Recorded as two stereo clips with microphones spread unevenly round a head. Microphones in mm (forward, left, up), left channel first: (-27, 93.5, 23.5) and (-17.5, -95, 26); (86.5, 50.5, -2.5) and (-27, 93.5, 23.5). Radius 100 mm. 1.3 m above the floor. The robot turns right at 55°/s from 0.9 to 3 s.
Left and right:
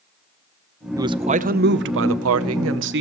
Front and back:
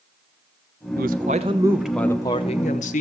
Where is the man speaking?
160° right, 0.8 m; by 3.0 s 50° right, 0.8 m.